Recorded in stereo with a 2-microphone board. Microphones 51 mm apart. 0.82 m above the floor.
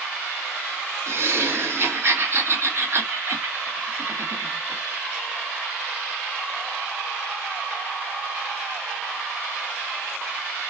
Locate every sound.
1.1 s laughter: 50° right (ahead or behind), 1.6 m